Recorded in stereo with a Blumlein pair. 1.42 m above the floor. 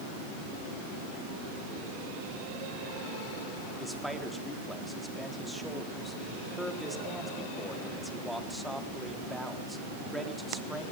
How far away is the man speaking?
About 4 m.